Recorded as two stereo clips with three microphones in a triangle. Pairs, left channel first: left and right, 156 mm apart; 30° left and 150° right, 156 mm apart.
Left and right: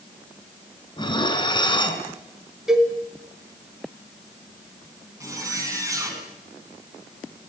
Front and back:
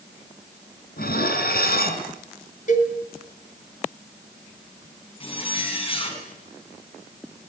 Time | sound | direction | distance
1.0 | dishes clattering | 30° left | 2.5 m
2.7 | a cowbell | 5° right | 3 m
5.2 | a zipper | 20° right | 4.5 m